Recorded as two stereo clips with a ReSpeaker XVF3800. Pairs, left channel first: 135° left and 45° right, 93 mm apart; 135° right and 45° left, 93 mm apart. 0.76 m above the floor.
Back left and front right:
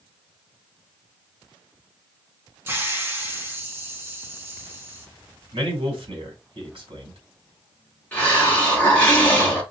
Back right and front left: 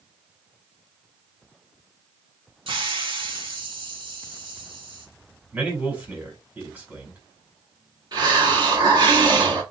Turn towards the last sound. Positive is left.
turn(degrees=65)